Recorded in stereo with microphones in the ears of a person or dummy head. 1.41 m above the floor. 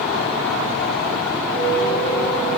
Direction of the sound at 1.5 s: 70° left (ahead or behind).